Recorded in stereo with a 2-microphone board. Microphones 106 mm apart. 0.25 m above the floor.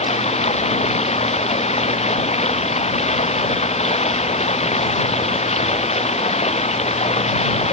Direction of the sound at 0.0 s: 85° left.